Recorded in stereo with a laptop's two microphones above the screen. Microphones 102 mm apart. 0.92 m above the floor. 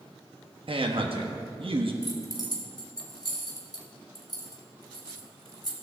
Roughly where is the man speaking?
Right.